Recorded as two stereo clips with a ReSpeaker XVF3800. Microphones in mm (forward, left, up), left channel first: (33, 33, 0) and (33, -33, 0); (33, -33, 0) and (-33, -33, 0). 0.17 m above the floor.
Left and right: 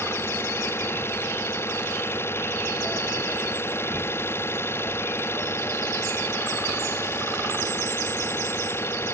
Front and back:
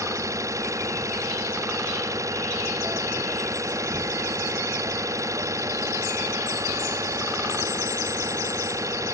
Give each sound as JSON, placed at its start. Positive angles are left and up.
{"t": 0.0, "sound": "an engine running", "azimuth_deg": 140}